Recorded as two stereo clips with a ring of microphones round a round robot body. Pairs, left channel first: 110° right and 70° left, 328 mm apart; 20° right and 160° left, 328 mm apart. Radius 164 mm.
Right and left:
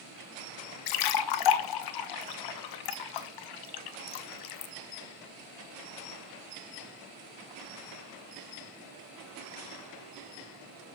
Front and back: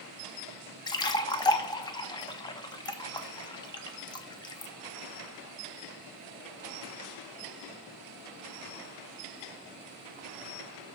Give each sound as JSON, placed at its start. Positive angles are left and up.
{"t": 0.9, "sound": "a splash", "azimuth_deg": -100, "distance_m": 0.6}